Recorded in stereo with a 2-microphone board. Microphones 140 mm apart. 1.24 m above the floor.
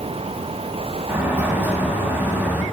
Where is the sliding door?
15° right (ahead or behind), 1.9 m.